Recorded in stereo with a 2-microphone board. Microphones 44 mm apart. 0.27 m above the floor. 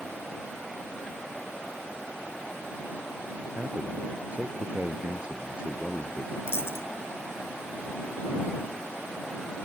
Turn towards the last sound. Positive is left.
turn(degrees=65)  # may be behind; listen again after turning